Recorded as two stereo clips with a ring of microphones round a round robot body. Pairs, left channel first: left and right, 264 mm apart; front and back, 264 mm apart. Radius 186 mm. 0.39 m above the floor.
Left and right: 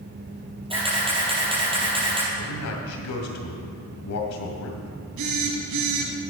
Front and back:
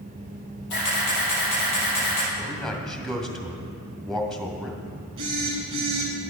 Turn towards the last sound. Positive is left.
turn(degrees=-105)